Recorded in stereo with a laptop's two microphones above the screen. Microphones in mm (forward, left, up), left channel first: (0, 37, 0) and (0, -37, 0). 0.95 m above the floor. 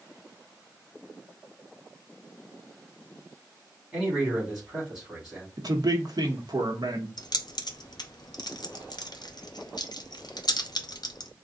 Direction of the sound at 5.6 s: 60° right (ahead or behind).